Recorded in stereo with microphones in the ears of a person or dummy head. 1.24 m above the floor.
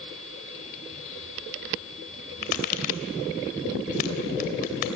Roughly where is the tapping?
Left.